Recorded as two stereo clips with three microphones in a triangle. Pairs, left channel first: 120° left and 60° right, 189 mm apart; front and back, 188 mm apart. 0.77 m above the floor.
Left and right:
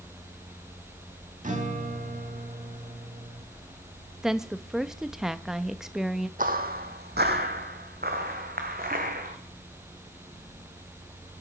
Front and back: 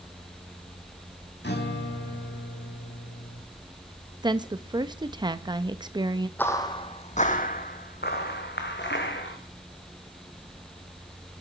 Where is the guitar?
15° right, 1.5 m.